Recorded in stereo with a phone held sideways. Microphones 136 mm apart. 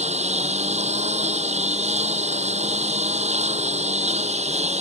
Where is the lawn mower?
55° right (ahead or behind).